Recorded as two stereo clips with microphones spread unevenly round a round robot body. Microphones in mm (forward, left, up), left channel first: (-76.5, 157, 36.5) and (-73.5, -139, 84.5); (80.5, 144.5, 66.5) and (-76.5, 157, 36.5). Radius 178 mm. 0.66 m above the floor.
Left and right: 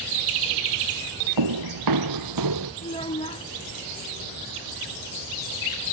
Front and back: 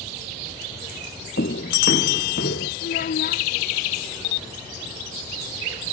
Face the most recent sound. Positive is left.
turn(degrees=15)